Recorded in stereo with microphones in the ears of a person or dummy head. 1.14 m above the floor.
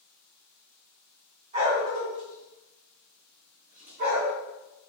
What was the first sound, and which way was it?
A dog barking, 35° right (ahead or behind).